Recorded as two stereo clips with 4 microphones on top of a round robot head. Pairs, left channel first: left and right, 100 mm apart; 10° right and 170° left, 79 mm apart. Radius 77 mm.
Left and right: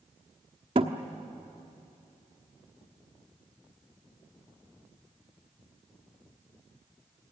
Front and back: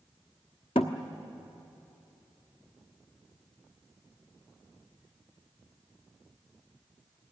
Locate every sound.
0.8 s a thud: 45° right, 1.0 m